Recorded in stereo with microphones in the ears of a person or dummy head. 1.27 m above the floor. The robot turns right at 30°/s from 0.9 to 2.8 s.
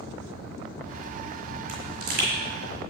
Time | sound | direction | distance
1.7 | a pop | 45° right (ahead or behind) | 6 m